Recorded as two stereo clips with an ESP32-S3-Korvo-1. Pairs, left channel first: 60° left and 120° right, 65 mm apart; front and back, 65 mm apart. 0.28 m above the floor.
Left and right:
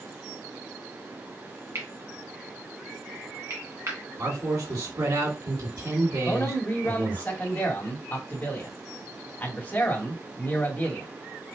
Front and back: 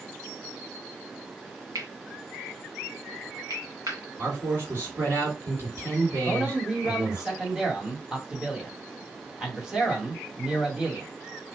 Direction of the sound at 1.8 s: 160° right.